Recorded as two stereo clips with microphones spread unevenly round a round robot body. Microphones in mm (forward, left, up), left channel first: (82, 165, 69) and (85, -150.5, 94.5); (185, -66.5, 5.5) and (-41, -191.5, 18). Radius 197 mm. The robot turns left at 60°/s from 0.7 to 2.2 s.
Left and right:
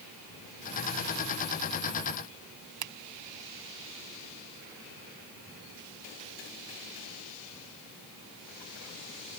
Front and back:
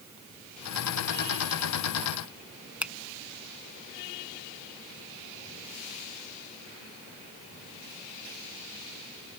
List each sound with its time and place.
2.8 s a finger snap: 65° right